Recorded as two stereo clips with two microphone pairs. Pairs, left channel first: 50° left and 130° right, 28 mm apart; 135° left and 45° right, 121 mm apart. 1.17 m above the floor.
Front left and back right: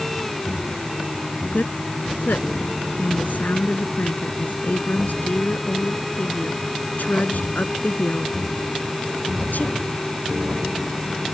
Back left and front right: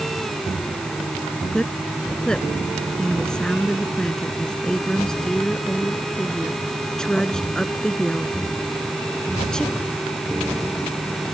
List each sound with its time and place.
1.5 s a woman speaking: 50° left